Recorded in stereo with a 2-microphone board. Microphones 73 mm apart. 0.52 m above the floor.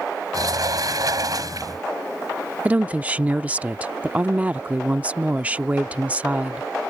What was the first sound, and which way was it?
A sliding door, 60° right (ahead or behind).